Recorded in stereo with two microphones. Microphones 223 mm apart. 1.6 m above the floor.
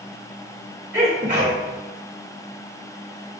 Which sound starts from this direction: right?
A sneeze, at 0.9 s.